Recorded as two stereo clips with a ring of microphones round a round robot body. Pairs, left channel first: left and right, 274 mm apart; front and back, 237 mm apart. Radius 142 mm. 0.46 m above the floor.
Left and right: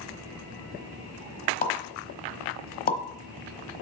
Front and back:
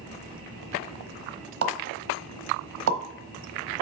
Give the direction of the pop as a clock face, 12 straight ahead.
7 o'clock.